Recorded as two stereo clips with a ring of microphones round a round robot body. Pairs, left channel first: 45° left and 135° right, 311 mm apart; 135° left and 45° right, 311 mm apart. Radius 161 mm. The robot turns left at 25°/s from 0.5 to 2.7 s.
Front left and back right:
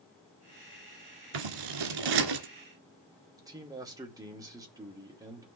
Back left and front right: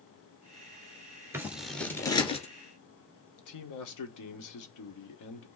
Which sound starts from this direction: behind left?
A man speaking, at 3.4 s.